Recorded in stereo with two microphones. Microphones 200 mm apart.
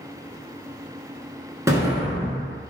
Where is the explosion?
15° right (ahead or behind), 0.6 m.